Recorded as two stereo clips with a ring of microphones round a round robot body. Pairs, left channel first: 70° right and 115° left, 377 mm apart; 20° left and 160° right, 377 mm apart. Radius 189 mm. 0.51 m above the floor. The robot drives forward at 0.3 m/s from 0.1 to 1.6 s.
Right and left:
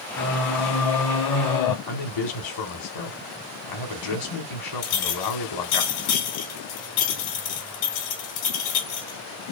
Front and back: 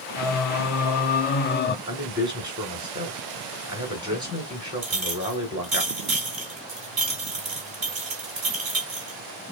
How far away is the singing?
About 0.8 m.